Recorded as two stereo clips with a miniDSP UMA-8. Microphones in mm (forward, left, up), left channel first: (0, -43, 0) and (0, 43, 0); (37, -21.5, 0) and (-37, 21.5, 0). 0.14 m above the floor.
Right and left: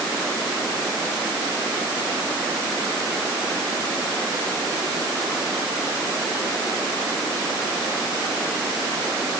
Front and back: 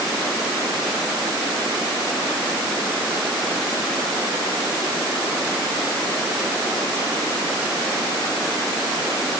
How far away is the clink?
No clink in this recording.